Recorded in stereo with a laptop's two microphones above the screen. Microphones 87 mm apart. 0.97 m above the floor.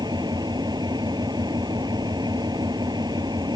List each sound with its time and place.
0.0 s an engine running: 55° right (ahead or behind)